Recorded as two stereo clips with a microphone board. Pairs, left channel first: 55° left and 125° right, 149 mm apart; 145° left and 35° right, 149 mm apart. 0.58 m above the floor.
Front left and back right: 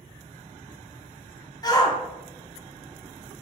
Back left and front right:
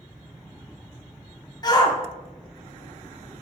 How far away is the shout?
About 0.8 m.